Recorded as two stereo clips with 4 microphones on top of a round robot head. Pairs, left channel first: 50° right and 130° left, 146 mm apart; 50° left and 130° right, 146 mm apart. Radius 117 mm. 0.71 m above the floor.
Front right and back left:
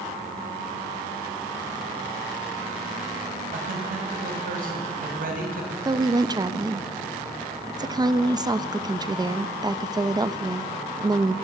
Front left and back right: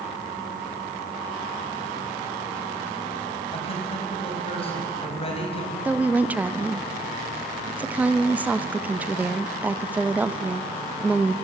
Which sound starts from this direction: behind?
A woman speaking, at 5.8 s.